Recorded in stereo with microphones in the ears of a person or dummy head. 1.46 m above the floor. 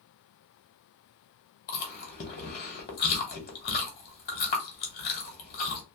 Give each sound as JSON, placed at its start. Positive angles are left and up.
{"t": 1.7, "sound": "chewing", "side_deg": 40, "distance_m": 1.2}